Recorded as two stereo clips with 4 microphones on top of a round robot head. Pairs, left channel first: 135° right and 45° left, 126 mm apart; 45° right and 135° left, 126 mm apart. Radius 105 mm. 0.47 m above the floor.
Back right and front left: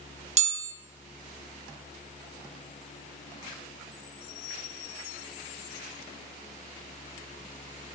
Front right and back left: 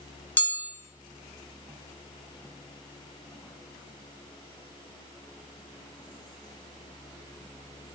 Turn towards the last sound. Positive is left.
turn(degrees=30)